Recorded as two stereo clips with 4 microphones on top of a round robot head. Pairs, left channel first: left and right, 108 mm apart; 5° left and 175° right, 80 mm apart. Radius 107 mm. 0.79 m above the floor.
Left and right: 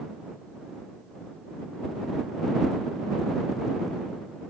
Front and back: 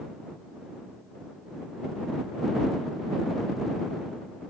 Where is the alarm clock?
I don't hear an alarm clock.